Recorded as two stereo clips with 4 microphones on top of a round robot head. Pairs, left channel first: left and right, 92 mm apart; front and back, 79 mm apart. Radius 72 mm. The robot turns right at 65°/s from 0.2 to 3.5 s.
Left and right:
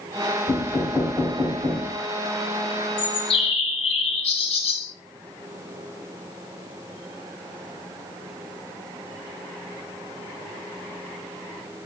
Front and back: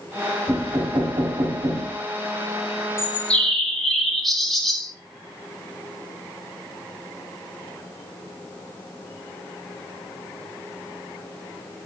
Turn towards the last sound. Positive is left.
turn(degrees=90)